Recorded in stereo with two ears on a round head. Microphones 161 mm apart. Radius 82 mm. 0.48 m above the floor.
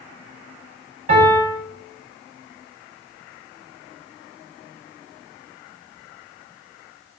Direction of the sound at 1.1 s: 50° right (ahead or behind).